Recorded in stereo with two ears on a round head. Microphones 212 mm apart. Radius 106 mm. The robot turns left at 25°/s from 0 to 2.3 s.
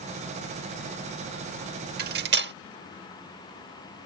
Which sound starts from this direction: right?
Cutlery clinking, at 2.0 s.